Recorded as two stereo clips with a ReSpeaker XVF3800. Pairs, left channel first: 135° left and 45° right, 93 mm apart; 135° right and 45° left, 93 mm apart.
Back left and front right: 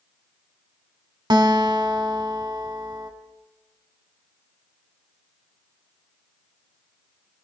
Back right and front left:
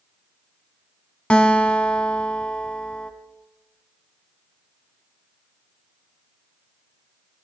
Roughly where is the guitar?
Ahead right.